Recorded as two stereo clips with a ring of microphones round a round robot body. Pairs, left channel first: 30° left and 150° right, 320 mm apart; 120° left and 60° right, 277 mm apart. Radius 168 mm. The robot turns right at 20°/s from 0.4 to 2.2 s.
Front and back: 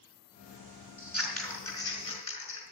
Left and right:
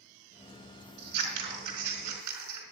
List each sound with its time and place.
1.0 s scissors: 65° right, 4.5 m; by 2.6 s 40° right, 4.5 m